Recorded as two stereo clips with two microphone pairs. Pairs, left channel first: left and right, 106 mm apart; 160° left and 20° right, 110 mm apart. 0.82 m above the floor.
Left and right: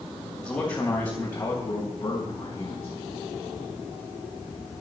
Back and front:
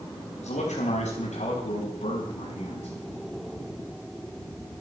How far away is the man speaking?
About 3.5 m.